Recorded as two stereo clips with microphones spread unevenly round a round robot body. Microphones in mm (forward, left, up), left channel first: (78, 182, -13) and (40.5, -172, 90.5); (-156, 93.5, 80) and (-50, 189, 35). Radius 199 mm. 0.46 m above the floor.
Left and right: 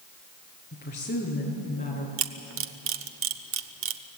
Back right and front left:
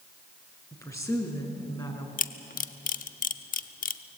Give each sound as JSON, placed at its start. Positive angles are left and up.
{"t": 0.7, "sound": "a woman speaking", "azimuth_deg": 155, "distance_m": 6.0}
{"t": 2.2, "sound": "a camera shutter", "azimuth_deg": -155, "distance_m": 0.9}